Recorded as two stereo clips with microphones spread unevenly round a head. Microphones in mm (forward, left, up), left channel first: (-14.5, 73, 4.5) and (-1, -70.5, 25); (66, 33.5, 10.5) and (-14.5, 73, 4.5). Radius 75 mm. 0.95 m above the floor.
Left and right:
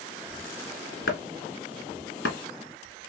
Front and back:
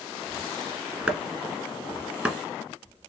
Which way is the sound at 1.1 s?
80° left.